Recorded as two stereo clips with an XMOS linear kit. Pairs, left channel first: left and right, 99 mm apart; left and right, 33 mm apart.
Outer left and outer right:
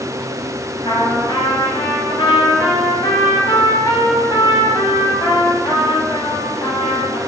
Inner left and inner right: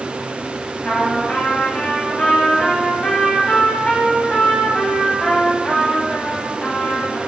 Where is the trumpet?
50° left (ahead or behind), 0.9 m.